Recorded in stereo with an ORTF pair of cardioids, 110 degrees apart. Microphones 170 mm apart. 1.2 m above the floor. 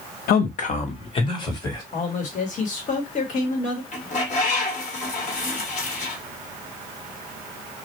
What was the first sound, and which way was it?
A man speaking, 65° left.